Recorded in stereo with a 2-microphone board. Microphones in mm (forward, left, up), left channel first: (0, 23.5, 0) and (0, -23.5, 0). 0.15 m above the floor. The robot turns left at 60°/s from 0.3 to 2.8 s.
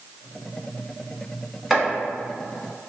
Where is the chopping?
5° right (ahead or behind), 1.1 m; by 1.9 s centre (ahead or behind), 1.1 m.